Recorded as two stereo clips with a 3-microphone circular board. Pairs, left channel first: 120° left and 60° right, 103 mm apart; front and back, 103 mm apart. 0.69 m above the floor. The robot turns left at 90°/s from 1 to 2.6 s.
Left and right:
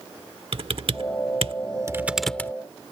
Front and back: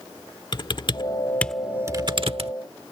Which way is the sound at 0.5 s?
40° right.